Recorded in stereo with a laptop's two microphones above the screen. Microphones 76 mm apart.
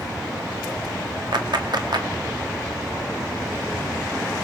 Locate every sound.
1.3 s a clap: 75° right (ahead or behind), 1.9 m